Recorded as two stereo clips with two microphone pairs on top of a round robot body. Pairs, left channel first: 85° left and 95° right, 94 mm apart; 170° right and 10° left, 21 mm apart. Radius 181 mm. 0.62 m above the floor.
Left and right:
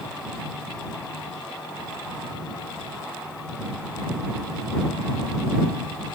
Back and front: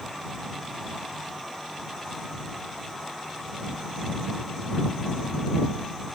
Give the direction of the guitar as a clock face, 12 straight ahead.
I don't hear a guitar.